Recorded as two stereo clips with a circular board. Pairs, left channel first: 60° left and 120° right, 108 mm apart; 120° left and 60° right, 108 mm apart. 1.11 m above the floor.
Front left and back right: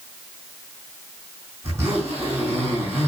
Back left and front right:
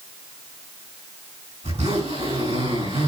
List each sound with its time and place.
1.6 s a zipper: 55° right, 6 m